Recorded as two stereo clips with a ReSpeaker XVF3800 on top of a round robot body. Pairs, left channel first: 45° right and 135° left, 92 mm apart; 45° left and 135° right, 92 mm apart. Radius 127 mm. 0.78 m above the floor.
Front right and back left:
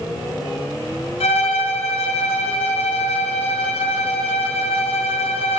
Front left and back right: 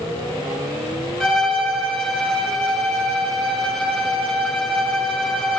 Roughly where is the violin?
Ahead right.